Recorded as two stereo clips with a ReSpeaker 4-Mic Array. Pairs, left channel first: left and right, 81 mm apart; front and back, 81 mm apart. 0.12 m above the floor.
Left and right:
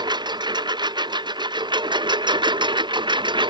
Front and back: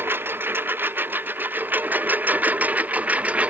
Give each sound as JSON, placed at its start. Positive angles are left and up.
{"t": 0.0, "sound": "a lawn mower", "azimuth_deg": -115}